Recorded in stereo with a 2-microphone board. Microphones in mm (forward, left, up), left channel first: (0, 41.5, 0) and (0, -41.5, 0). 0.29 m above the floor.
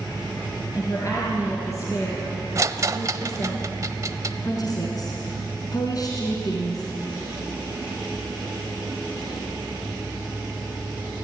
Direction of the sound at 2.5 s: 40° right (ahead or behind).